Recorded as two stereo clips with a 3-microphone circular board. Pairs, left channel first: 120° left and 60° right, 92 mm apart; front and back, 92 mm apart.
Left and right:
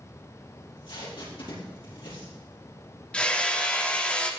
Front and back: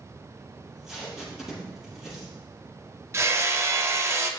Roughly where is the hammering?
Behind.